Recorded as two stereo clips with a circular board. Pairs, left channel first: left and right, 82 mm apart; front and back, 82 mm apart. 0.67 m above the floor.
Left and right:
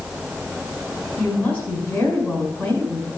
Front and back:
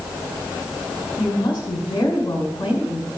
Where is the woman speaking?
20° left, 3 m.